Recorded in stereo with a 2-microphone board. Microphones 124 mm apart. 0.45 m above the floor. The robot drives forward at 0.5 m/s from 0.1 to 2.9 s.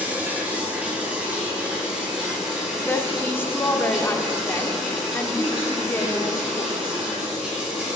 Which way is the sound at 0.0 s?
15° right (ahead or behind).